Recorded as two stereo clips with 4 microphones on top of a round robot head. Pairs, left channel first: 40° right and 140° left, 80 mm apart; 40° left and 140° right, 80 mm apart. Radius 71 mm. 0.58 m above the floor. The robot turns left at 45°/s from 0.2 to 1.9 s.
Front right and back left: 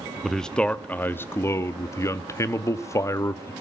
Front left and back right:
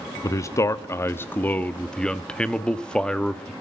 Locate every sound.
0.2 s a man speaking: 45° left, 0.9 m; by 3.5 s 30° right, 0.9 m